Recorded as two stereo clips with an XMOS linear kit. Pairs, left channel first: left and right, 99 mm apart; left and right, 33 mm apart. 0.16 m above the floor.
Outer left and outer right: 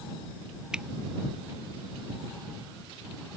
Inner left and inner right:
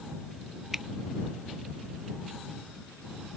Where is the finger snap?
10° right (ahead or behind).